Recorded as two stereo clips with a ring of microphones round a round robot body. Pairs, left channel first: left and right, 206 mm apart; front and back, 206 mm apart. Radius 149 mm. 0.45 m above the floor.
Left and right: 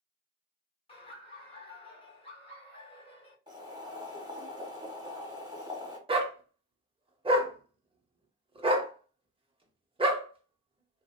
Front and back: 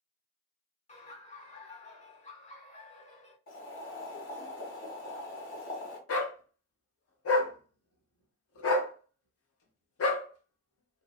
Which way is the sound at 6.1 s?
25° right.